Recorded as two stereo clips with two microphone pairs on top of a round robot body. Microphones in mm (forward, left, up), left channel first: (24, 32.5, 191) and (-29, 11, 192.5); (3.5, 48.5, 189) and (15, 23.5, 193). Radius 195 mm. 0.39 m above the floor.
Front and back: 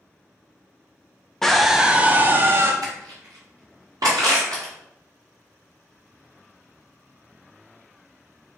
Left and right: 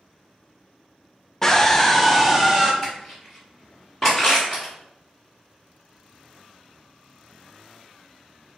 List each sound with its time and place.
1.4 s a scream: 95° left, 0.8 m; by 2.7 s 155° right, 0.9 m
2.8 s crushing: 160° right, 1.2 m